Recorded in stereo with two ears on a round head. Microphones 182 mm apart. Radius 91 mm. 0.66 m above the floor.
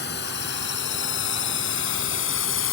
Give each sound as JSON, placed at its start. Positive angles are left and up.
{"t": 0.0, "sound": "a drone", "side_deg": 55}